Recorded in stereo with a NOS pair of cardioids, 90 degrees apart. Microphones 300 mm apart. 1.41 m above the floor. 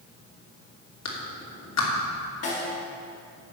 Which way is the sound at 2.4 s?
60° left.